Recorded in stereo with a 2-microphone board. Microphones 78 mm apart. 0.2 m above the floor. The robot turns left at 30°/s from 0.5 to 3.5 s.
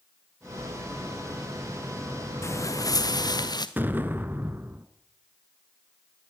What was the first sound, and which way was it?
Footsteps, 35° left (ahead or behind).